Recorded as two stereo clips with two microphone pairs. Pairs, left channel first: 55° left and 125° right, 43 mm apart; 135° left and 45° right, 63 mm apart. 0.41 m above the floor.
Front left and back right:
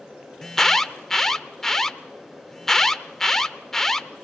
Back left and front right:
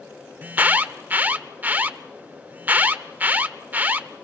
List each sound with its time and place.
0.4 s an alarm: 15° right, 0.8 m